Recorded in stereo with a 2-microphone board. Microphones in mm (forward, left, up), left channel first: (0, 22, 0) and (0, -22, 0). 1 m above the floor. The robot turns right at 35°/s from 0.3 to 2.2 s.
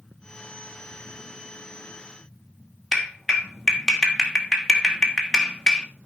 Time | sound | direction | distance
2.9 | a clap | 10° left (ahead or behind) | 2 m